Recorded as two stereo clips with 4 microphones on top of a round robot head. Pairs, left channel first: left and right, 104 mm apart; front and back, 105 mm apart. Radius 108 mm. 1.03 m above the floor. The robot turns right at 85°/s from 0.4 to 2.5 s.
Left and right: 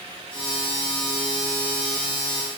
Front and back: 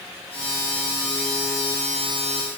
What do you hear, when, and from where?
Only background noise.